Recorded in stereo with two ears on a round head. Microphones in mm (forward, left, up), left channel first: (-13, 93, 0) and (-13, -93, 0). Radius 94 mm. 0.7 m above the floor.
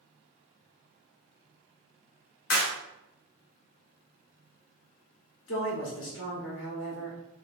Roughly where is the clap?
Left.